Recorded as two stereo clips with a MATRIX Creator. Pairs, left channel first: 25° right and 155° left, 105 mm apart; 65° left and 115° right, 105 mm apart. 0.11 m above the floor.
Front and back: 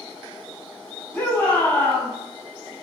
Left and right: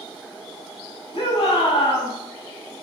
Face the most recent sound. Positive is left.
turn(degrees=45)